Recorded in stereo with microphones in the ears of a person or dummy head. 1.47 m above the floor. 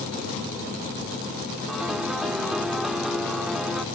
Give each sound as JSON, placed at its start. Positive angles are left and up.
{"t": 1.7, "sound": "a piano", "side_deg": -5}